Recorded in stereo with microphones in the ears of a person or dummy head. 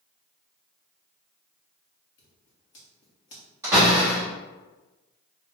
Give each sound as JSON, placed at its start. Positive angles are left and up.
{"t": 2.2, "sound": "scissors", "side_deg": 45, "distance_m": 0.7}
{"t": 3.6, "sound": "a door slam", "side_deg": -15, "distance_m": 1.5}